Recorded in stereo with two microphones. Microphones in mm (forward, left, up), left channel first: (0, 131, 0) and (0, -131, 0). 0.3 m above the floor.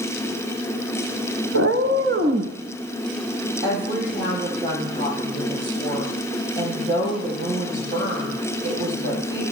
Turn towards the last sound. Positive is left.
turn(degrees=-40)  # may be behind; listen again after turning